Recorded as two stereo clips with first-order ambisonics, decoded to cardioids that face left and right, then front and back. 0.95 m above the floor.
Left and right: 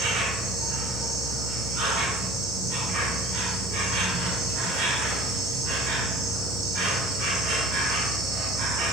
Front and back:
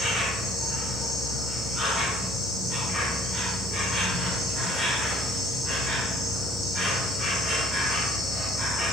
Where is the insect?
100° right, 1.1 m.